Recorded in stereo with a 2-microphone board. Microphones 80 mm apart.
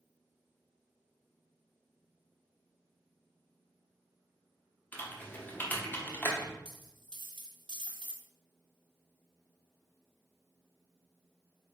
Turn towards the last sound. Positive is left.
turn(degrees=-75)  # may be behind; listen again after turning